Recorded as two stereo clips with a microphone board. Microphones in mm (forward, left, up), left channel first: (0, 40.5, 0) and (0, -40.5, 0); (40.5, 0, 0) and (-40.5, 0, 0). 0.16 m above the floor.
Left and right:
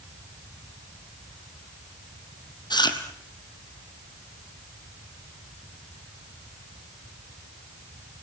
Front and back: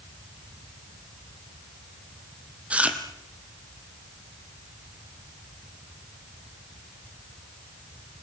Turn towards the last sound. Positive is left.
turn(degrees=105)